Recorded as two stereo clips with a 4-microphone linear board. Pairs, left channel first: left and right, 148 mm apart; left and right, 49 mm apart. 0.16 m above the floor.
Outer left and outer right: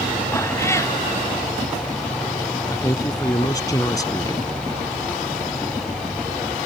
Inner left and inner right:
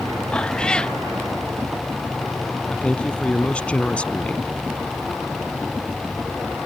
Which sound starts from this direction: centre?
A cat meowing, at 0.3 s.